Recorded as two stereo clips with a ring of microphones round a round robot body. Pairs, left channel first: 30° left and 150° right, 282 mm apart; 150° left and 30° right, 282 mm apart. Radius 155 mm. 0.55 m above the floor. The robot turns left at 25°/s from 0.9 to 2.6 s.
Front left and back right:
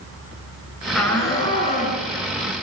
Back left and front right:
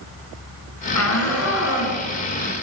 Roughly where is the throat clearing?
I don't hear throat clearing.